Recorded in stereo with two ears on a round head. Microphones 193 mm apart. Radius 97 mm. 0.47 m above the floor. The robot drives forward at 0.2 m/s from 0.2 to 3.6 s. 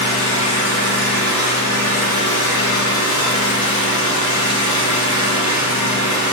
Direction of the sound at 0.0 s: 70° left (ahead or behind).